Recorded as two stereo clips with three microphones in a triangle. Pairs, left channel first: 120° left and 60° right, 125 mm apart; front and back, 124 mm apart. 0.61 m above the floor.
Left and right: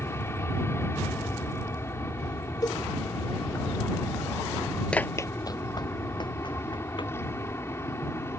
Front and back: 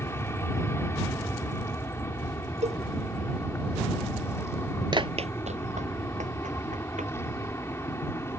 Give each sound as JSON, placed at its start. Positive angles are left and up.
{"t": 0.0, "sound": "an aircraft", "azimuth_deg": 60}
{"t": 2.6, "sound": "a cowbell", "azimuth_deg": 175}
{"t": 4.9, "sound": "running footsteps", "azimuth_deg": -165}